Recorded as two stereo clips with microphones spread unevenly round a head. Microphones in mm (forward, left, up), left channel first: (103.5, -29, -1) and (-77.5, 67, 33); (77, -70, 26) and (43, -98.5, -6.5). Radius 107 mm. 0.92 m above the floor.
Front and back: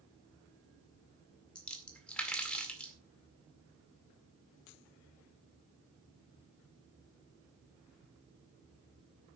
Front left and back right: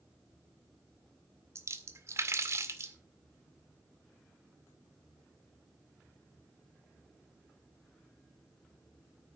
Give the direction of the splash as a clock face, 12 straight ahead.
4 o'clock.